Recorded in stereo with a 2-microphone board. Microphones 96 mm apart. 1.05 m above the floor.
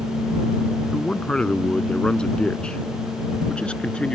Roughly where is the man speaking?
Centre.